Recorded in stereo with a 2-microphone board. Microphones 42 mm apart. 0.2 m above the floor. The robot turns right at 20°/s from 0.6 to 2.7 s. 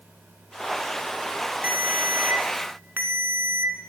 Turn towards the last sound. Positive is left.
turn(degrees=-50)  # may be behind; listen again after turning